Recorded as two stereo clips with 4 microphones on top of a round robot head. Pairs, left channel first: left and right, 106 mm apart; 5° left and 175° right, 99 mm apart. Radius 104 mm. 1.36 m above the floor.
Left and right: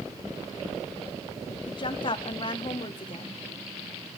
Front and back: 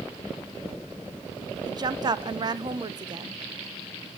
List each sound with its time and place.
1.7 s a woman speaking: 140° left, 1.0 m